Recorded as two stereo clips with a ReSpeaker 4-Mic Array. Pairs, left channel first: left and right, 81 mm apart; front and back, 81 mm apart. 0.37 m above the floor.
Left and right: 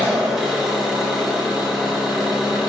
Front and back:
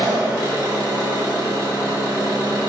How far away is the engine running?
About 1.2 m.